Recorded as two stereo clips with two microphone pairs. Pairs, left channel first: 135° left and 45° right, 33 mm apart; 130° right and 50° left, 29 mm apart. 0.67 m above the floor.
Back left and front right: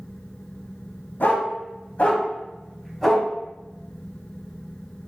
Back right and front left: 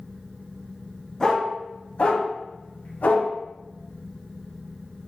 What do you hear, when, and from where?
1.2 s a dog barking: 155° left, 1.5 m; by 3.3 s 135° right, 1.6 m